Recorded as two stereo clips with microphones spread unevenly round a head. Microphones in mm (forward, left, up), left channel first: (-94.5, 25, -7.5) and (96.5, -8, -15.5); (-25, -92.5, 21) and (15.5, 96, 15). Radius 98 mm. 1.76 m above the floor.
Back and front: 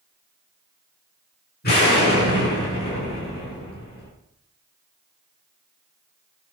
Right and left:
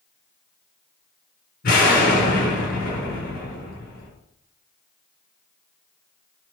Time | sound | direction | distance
1.6 | an explosion | 145° right | 8 m